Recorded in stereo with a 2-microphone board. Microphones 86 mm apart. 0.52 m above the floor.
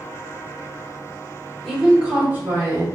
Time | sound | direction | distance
1.6 | a woman speaking | centre (ahead or behind) | 1.0 m